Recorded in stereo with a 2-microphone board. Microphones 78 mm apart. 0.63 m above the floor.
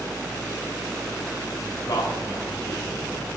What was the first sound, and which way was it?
A man speaking, 60° left (ahead or behind).